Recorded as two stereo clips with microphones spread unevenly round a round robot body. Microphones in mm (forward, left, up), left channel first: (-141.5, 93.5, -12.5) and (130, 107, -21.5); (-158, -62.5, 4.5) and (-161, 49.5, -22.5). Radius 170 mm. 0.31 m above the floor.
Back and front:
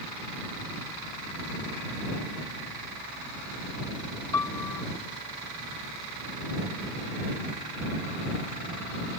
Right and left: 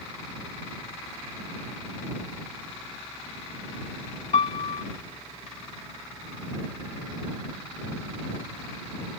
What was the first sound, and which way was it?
A piano, 95° right.